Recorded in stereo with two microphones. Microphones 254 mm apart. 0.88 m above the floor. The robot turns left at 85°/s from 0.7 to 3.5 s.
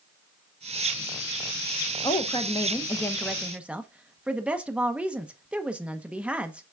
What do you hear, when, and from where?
2.0 s a woman speaking: 15° left (ahead or behind), 0.7 m; by 6.6 s 5° right (ahead or behind), 0.7 m